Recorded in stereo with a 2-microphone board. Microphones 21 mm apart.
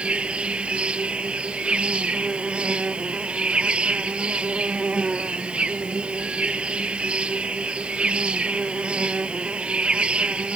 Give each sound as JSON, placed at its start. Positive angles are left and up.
{"t": 0.0, "sound": "an insect", "side_deg": -80}